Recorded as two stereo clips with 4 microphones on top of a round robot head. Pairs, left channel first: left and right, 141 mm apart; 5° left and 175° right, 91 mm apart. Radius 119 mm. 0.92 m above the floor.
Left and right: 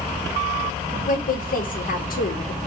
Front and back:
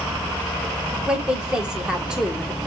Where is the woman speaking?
100° left, 1.6 m.